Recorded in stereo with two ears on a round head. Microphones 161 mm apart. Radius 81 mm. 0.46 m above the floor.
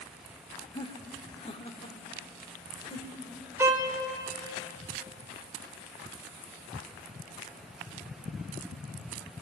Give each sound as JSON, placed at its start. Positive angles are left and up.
{"t": 0.7, "sound": "laughter", "side_deg": 25, "distance_m": 1.2}
{"t": 3.6, "sound": "a violin", "side_deg": -15, "distance_m": 2.0}